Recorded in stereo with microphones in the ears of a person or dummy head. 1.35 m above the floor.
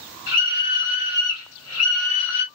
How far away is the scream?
About 1.9 m.